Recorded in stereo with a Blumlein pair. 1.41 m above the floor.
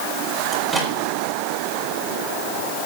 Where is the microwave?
Straight ahead, 4.5 m.